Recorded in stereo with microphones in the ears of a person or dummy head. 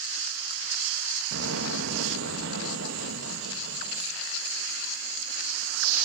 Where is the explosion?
70° right (ahead or behind), 2.5 m.